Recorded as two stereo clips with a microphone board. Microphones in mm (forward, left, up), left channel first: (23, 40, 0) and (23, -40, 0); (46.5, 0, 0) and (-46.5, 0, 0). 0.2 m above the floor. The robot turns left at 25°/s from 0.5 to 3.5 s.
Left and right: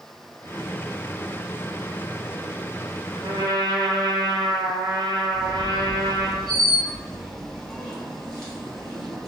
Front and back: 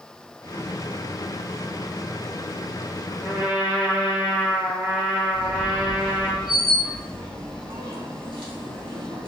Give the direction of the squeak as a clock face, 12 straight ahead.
6 o'clock.